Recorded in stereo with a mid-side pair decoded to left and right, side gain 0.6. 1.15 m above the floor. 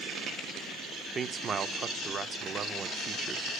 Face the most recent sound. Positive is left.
turn(degrees=-35)